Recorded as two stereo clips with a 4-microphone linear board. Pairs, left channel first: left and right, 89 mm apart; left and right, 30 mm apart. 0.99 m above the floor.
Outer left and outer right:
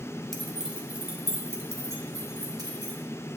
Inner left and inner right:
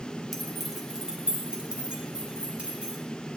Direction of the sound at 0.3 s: Centre (ahead or behind).